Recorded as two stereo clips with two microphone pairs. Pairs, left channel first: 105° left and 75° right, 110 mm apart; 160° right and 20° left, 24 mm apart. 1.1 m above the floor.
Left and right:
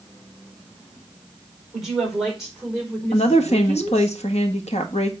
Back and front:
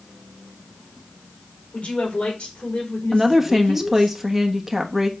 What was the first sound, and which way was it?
A woman speaking, 160° right.